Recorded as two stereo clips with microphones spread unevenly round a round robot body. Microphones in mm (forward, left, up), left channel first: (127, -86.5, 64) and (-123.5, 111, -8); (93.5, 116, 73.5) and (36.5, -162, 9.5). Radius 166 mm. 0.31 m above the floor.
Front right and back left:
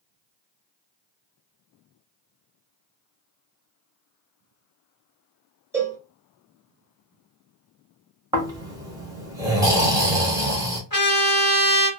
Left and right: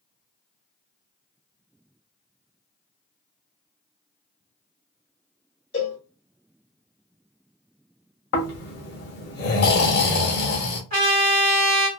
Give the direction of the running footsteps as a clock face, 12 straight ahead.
No running footsteps in this recording.